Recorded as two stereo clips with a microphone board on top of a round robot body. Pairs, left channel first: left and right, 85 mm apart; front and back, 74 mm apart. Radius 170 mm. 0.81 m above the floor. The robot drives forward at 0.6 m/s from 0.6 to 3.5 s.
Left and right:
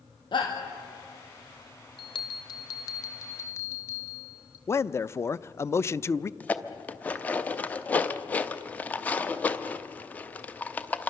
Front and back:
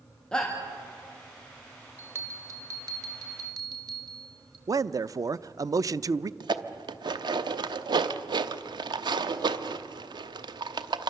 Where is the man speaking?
145° left, 0.5 m.